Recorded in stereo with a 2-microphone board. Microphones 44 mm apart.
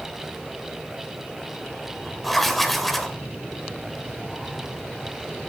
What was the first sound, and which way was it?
Writing, 5° left (ahead or behind).